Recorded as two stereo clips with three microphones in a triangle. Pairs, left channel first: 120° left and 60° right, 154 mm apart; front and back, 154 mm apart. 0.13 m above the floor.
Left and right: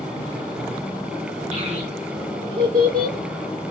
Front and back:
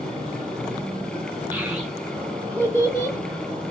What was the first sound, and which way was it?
A child speaking, 100° right.